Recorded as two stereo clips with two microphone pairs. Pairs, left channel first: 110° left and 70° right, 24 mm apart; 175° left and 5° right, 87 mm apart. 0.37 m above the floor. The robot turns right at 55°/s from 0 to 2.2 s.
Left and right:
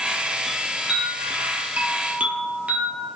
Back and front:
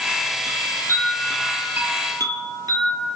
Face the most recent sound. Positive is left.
turn(degrees=-50)